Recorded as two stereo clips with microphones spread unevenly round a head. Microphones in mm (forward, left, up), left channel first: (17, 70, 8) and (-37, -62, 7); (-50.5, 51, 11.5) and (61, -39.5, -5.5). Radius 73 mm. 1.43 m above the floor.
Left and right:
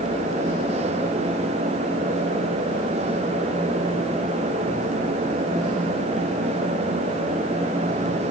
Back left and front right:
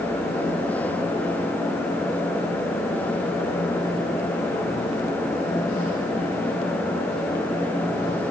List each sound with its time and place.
Only background noise.